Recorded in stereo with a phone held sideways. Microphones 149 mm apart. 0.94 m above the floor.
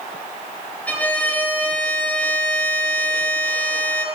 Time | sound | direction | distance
0.9 | a violin | 10° left (ahead or behind) | 5.5 m